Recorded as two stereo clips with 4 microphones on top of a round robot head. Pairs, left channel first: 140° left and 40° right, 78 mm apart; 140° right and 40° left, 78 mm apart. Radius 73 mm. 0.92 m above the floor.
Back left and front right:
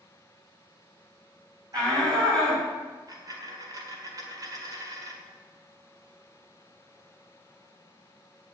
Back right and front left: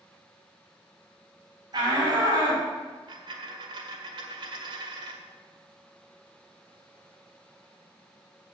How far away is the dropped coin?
About 1.7 m.